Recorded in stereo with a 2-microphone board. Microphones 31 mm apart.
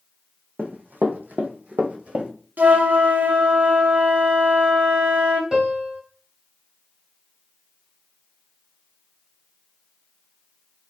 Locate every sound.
0.6 s running footsteps: 55° right (ahead or behind), 0.8 m; by 2.3 s 40° right (ahead or behind), 0.8 m
2.6 s a flute: 75° right (ahead or behind), 0.6 m
5.5 s a piano: 25° right (ahead or behind), 0.9 m